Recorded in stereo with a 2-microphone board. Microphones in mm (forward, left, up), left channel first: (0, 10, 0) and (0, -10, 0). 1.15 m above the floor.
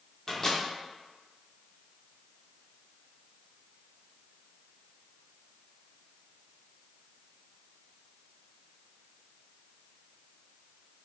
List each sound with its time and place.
0.3 s a microwave: 15° left (ahead or behind), 0.9 m